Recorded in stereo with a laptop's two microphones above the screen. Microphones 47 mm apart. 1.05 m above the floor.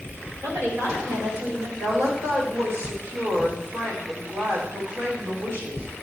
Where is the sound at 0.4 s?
70° right (ahead or behind), 4 m; by 1.7 s 60° right (ahead or behind), 4 m.